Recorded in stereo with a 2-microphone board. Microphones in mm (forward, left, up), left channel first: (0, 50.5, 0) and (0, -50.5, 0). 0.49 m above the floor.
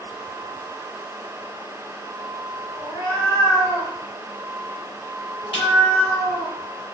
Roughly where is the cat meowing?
Left.